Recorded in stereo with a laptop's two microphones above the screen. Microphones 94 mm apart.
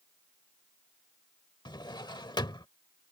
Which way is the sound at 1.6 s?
50° left (ahead or behind).